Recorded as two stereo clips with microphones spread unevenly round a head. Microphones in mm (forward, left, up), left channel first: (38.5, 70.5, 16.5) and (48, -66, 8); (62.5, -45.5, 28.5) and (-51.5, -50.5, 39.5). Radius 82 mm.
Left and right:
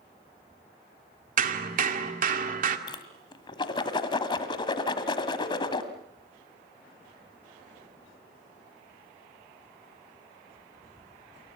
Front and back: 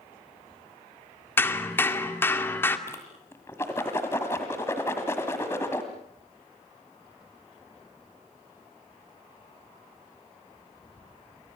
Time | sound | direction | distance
1.4 | hammering | 70° right | 2 m
2.9 | a whoosh | 75° left | 1.6 m